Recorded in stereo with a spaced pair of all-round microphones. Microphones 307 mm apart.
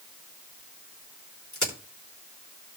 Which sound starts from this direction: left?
A crack, at 1.5 s.